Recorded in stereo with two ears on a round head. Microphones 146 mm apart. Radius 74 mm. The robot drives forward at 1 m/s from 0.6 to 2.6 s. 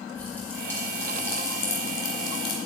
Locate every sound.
0.1 s a pop: 15° left (ahead or behind), 3.5 m; by 2.6 s 30° left (ahead or behind), 1.8 m